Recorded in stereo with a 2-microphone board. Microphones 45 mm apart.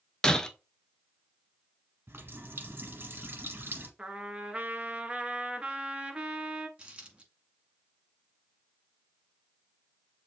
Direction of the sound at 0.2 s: 15° left (ahead or behind).